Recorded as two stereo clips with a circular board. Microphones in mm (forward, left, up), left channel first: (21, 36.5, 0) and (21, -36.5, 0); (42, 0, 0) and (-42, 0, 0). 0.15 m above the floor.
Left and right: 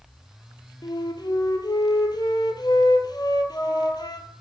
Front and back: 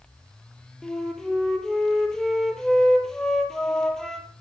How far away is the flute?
About 1.6 m.